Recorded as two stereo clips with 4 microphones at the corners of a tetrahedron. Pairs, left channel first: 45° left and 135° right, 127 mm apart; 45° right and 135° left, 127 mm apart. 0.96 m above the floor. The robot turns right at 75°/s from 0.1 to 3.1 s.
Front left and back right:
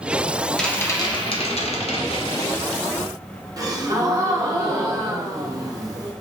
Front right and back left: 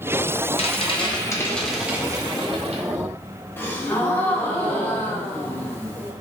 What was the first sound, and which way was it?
A rattle, 40° right.